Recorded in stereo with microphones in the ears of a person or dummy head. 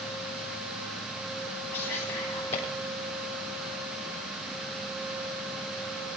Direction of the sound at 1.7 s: 30° left (ahead or behind).